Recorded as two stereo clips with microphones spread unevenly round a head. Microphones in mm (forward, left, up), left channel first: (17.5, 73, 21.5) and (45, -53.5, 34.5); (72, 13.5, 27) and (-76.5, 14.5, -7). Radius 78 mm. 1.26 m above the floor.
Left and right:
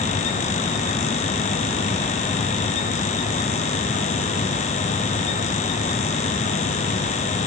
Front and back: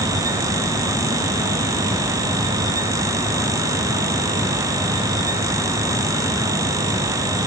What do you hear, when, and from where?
Only background noise.